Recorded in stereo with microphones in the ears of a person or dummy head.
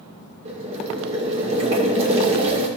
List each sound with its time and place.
0.5 s boiling: 30° right (ahead or behind), 2 m